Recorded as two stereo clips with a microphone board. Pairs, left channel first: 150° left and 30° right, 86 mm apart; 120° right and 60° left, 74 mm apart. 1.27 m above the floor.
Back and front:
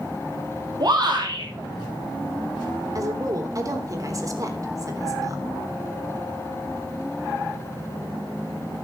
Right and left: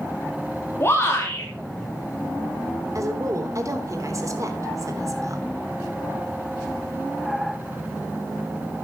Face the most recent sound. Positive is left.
turn(degrees=20)